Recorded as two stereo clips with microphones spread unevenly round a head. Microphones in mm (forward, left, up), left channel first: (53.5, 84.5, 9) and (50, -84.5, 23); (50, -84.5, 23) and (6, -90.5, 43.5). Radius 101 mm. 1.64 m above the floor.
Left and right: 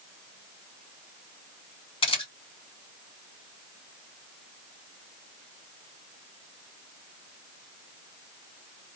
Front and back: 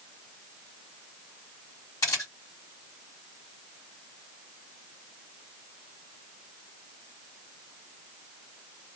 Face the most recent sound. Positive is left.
turn(degrees=30)